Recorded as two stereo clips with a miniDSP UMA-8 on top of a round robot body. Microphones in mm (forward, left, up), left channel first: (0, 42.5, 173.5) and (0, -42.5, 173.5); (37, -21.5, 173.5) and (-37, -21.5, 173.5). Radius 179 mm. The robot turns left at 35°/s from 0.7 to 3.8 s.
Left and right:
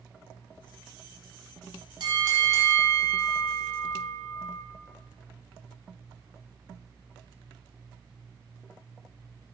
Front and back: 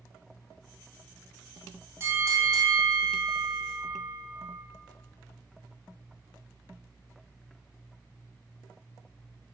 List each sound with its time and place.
2.0 s a bell: 125° right, 1.4 m; by 4.6 s 175° left, 1.4 m